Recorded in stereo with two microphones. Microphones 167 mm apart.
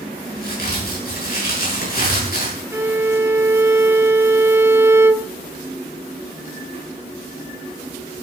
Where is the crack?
65° left (ahead or behind), 8.5 m.